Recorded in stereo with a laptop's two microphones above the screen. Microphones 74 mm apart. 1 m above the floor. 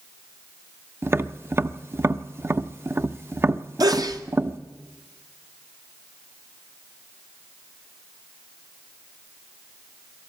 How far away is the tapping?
About 0.6 m.